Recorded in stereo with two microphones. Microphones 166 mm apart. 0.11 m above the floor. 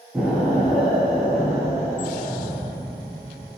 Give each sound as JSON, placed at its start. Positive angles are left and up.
{"t": 0.1, "sound": "an explosion", "side_deg": -5, "distance_m": 0.7}